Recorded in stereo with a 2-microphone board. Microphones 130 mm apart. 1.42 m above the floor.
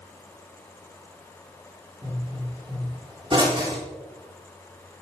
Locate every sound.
2.0 s a pop: 40° right (ahead or behind), 3.5 m